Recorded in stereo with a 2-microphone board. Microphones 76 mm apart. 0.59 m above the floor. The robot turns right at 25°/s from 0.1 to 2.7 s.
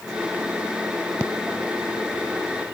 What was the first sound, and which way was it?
Only background noise.